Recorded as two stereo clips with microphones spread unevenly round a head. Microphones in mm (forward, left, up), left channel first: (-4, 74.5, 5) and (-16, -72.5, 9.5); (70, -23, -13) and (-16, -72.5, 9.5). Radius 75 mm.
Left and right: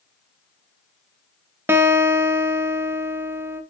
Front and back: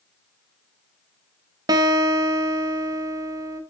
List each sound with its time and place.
1.7 s a guitar: 165° right, 0.8 m